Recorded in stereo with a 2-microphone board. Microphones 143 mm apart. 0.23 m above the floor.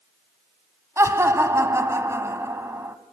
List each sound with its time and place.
1.0 s laughter: 20° right (ahead or behind), 1.7 m